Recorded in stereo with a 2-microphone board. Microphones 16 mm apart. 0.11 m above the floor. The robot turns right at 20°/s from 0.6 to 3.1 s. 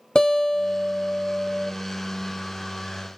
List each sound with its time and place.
0.1 s a guitar: 50° left (ahead or behind), 0.9 m; by 1.7 s 30° left (ahead or behind), 0.9 m